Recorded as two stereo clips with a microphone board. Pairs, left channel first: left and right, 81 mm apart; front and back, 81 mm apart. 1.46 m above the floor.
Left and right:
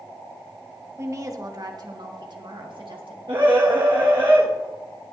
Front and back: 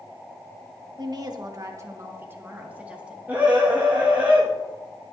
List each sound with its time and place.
1.0 s a woman speaking: 145° right, 1.5 m; by 3.2 s 105° right, 2 m
3.3 s a scream: 110° right, 1.7 m